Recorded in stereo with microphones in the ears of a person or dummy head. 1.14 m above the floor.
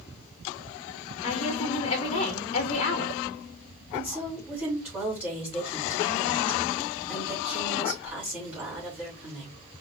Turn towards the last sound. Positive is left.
turn(degrees=-10)  # may be behind; listen again after turning